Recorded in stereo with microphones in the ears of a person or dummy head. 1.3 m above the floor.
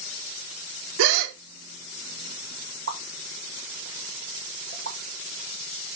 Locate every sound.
1.0 s a gasp: 70° right (ahead or behind), 0.8 m
2.9 s a pop: 55° right (ahead or behind), 1.9 m